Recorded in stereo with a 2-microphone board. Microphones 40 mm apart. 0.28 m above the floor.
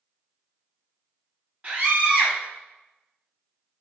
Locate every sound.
1.6 s a scream: 45° right (ahead or behind), 1.7 m